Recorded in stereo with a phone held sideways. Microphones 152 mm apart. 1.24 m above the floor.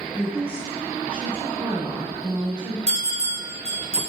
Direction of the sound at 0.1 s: 10° right (ahead or behind).